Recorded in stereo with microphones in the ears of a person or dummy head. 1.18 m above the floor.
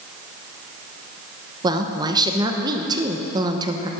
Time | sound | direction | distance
1.6 | a woman speaking | 25° right (ahead or behind) | 0.9 m